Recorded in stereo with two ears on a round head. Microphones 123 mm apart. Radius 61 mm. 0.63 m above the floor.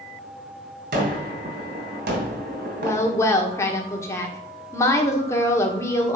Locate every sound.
0.9 s a gunshot: 70° right (ahead or behind), 2.5 m
2.8 s a woman speaking: 20° left (ahead or behind), 1.5 m